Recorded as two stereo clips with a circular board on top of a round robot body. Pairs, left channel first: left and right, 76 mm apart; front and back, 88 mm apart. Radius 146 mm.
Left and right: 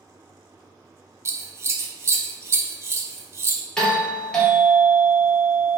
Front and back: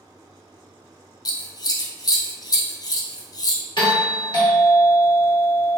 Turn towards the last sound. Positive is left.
turn(degrees=10)